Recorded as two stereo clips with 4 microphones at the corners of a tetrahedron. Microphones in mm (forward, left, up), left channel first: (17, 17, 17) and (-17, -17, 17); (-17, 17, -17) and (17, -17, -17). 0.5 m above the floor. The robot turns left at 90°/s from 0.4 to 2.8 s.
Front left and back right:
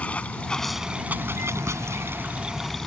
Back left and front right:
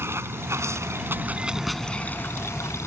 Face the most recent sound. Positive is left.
turn(degrees=125)